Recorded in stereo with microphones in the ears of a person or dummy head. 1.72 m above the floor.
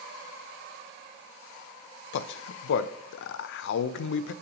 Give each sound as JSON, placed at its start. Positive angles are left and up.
{"t": 2.1, "sound": "a man speaking", "side_deg": 65, "distance_m": 0.5}